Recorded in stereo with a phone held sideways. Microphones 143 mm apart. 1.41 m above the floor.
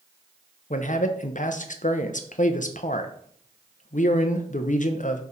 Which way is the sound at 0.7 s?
65° left (ahead or behind).